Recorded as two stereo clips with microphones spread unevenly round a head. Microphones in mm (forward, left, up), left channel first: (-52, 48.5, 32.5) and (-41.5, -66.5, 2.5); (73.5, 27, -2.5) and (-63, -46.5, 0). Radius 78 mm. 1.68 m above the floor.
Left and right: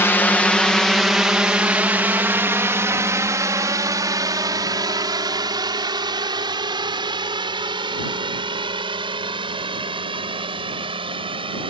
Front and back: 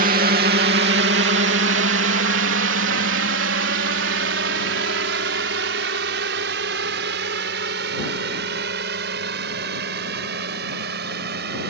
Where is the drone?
170° left; by 11.7 s 130° right.